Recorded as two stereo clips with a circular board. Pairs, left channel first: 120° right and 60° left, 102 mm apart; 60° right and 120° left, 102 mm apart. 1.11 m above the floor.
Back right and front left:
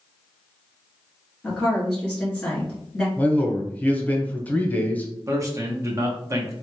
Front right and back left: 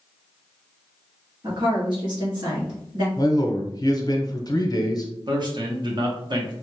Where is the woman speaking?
160° left, 1.9 m.